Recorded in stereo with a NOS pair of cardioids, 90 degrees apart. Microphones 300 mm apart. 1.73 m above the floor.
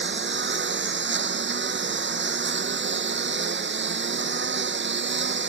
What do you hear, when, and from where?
0.0 s a lawn mower: 35° right